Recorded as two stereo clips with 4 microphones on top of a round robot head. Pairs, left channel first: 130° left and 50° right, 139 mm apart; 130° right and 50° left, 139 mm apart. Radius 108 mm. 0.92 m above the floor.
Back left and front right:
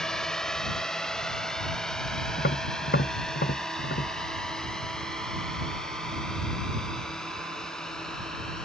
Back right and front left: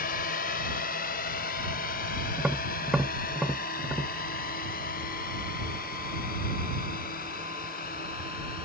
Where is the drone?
145° right.